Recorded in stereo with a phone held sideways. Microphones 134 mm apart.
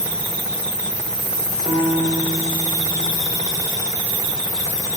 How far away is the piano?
About 6 m.